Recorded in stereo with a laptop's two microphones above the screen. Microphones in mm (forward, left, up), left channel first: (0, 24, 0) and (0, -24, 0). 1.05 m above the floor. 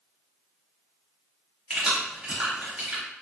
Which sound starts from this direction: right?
Keys jangling, at 1.7 s.